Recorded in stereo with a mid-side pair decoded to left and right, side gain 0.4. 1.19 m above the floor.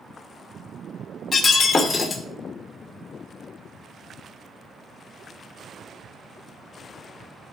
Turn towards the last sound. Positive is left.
turn(degrees=45)